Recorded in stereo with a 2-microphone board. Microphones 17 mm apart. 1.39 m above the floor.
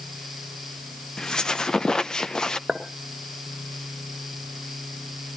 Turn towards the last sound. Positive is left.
turn(degrees=-70)  # may be behind; listen again after turning